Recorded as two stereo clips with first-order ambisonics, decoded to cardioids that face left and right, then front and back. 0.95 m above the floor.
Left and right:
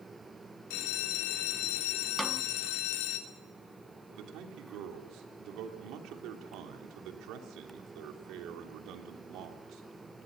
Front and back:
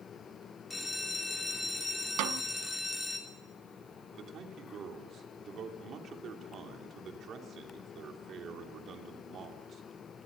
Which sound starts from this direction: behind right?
A man speaking, at 4.1 s.